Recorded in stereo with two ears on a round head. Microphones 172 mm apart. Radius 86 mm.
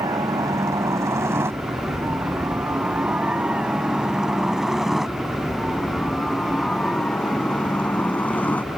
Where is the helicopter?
20° right (ahead or behind); by 8.8 s 10° left (ahead or behind).